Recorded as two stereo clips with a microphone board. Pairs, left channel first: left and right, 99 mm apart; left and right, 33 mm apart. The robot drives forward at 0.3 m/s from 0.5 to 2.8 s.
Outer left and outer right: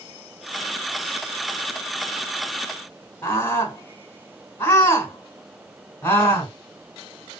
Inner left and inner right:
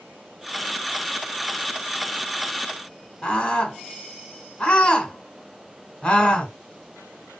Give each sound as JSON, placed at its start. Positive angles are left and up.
{"t": 3.2, "sound": "a scream", "side_deg": 20, "distance_m": 2.5}